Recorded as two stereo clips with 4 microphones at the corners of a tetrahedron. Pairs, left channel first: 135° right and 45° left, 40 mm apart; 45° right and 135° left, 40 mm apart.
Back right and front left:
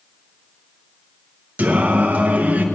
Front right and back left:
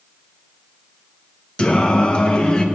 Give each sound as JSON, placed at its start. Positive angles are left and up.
{"t": 1.6, "sound": "singing", "azimuth_deg": 15, "distance_m": 1.1}